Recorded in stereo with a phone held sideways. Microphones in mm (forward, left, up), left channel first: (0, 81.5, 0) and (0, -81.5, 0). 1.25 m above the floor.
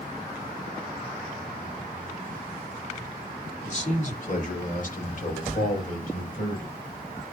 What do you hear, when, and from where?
3.6 s a man speaking: 45° left (ahead or behind), 2.5 m; by 6.7 s 60° left (ahead or behind), 5.5 m